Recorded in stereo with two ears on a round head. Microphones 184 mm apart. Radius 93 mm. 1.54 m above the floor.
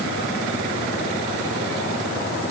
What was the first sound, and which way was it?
Only background noise.